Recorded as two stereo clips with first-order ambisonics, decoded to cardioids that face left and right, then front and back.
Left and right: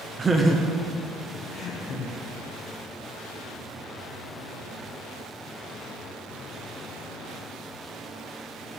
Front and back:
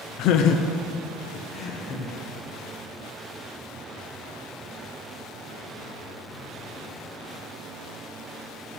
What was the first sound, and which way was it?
Laughter, 25° right.